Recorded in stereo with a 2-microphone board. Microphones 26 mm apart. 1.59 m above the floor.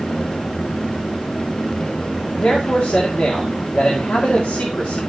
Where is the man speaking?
85° left, 1.9 m.